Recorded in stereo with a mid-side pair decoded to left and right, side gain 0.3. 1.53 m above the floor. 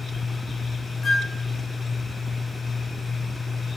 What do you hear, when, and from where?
1.0 s a flute: 60° left, 2 m